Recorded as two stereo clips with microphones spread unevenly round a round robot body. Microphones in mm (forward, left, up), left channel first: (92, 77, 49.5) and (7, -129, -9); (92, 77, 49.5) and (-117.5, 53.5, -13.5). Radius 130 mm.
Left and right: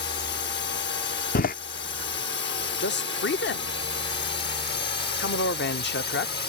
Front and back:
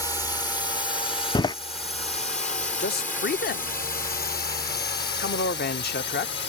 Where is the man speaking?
40° left.